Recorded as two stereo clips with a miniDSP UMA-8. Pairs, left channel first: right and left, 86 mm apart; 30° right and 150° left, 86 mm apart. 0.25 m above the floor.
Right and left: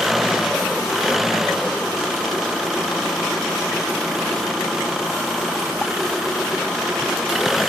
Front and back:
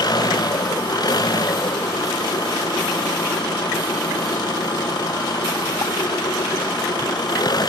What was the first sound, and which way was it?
An engine running, 5° left.